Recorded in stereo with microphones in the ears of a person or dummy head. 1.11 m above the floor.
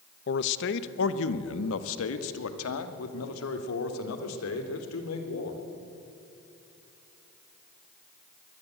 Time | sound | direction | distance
0.3 | a man speaking | 55° left (ahead or behind) | 1.0 m